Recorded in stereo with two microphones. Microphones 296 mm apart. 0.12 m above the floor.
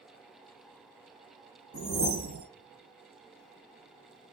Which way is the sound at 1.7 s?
45° right (ahead or behind).